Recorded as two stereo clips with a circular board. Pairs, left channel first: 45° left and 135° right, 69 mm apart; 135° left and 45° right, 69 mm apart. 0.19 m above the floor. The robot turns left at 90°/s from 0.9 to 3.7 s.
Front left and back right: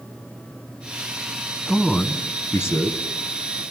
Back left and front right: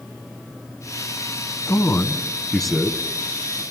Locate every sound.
1.7 s a man speaking: 135° left, 1.6 m; by 3.6 s 40° right, 1.6 m